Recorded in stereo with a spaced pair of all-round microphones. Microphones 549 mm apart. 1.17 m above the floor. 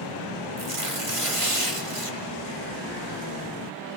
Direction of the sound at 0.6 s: 70° right (ahead or behind).